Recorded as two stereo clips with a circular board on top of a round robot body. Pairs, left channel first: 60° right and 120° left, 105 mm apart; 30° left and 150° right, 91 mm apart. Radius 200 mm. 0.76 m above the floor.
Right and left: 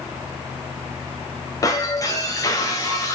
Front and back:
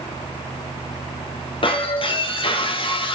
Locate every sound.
1.6 s breaking glass: straight ahead, 3 m